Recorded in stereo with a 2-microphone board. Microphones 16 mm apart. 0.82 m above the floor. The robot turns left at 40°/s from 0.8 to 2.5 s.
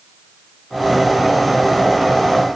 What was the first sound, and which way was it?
Only background noise.